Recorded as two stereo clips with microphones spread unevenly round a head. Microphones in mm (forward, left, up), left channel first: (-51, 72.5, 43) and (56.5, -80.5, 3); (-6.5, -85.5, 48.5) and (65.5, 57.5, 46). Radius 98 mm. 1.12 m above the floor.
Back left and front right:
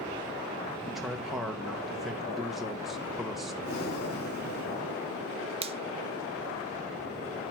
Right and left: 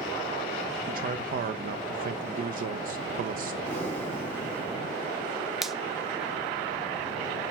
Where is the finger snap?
25° right, 0.7 m.